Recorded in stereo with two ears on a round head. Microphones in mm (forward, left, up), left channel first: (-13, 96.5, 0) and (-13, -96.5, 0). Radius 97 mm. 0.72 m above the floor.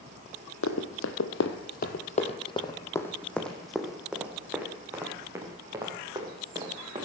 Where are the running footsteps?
65° left (ahead or behind), 1.7 m; by 7.0 s 20° right (ahead or behind), 5 m.